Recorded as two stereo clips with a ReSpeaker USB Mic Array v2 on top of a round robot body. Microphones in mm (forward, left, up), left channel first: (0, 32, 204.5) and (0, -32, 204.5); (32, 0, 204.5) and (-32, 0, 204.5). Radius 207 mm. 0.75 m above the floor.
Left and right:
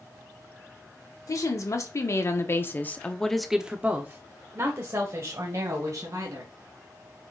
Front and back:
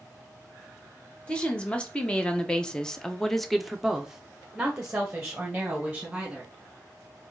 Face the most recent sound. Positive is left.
turn(degrees=-105)